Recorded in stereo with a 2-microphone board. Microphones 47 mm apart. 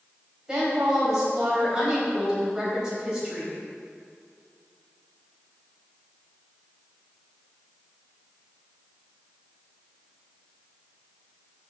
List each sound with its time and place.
0.5 s a woman speaking: 15° right (ahead or behind), 3.5 m